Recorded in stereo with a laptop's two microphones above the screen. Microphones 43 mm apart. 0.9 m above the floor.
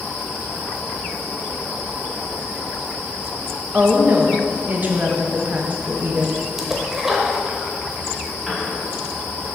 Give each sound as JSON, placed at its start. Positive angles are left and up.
{"t": 3.7, "sound": "a woman speaking", "side_deg": -40, "distance_m": 1.0}
{"t": 6.6, "sound": "a splash", "side_deg": -10, "distance_m": 0.8}
{"t": 8.5, "sound": "a piano", "side_deg": 0, "distance_m": 1.5}